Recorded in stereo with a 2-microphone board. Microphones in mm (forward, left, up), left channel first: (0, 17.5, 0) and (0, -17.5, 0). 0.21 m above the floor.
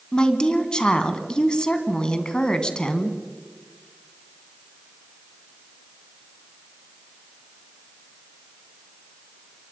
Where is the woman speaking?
25° left (ahead or behind), 1.9 m.